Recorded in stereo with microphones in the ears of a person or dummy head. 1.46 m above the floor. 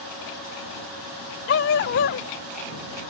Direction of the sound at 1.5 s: 65° left (ahead or behind).